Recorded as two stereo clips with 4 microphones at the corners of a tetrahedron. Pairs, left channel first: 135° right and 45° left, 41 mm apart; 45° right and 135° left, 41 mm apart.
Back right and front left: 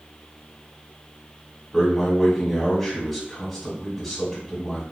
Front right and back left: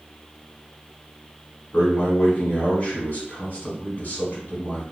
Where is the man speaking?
45° right, 1.9 m.